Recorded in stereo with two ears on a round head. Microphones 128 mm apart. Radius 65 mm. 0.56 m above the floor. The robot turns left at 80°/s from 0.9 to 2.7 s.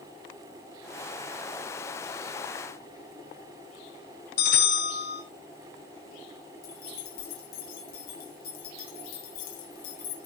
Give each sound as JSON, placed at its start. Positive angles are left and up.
{"t": 4.4, "sound": "a bell", "side_deg": 70, "distance_m": 5.0}
{"t": 6.6, "sound": "keys jangling", "side_deg": 75, "distance_m": 3.5}